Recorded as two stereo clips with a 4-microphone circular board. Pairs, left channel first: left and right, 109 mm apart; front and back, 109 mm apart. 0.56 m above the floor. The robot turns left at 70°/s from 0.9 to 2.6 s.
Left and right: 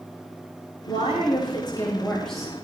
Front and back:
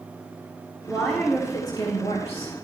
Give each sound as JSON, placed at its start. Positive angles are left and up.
{"t": 0.9, "sound": "a woman speaking", "azimuth_deg": 100, "distance_m": 3.0}